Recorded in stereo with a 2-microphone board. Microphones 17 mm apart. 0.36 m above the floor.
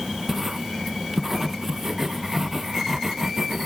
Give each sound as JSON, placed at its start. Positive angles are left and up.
{"t": 0.3, "sound": "writing", "side_deg": -25}